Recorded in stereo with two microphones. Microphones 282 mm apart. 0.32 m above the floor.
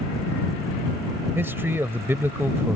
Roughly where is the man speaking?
Centre.